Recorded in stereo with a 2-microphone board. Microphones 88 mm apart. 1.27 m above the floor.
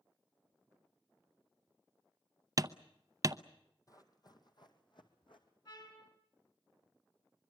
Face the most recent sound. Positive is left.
turn(degrees=60)  # may be behind; listen again after turning